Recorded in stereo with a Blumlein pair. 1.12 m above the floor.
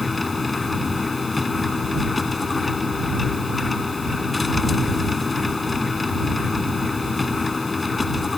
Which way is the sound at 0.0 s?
10° left.